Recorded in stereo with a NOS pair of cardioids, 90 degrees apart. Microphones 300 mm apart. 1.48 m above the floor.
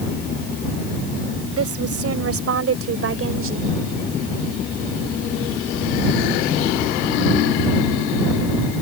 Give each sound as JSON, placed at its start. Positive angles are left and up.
{"t": 1.6, "sound": "a woman speaking", "azimuth_deg": -50}